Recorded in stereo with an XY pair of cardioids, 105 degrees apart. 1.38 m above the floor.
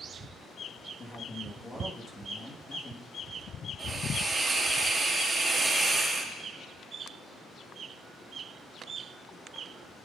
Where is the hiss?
20° right, 2.5 m.